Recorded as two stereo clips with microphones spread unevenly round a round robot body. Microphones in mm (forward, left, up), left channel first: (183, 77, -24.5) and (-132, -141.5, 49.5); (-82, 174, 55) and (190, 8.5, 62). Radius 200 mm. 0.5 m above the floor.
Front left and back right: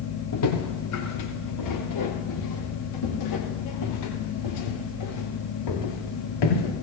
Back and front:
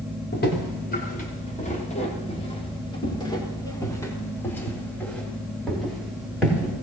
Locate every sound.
0.3 s footsteps: 90° left, 7 m; by 6.7 s 55° left, 9.5 m